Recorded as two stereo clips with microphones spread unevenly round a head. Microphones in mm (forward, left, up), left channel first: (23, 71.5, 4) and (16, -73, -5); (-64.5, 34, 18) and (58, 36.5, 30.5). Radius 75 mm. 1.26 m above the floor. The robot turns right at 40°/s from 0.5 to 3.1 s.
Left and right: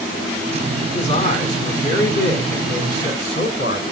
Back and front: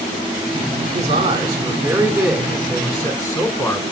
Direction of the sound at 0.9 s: 30° left.